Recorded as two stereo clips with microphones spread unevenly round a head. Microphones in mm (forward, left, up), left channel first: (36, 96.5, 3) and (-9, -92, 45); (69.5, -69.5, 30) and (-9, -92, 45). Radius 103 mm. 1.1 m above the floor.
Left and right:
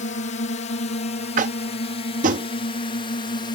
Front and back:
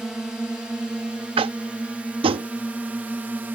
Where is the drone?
105° left; by 3.6 s 120° left.